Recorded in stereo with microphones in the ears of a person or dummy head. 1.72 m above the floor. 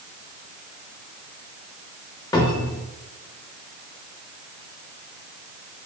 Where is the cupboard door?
15° left (ahead or behind), 0.5 m.